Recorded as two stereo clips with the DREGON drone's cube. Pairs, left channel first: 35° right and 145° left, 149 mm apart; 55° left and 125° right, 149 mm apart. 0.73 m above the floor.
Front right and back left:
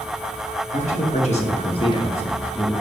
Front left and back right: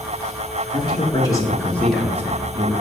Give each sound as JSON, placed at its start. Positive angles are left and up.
{"t": 0.7, "sound": "a man speaking", "azimuth_deg": 0, "distance_m": 1.5}